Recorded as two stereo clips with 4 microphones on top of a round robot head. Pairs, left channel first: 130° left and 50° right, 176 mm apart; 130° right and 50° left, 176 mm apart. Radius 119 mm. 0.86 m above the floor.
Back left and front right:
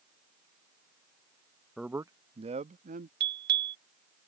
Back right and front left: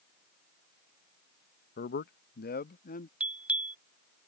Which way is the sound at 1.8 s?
140° right.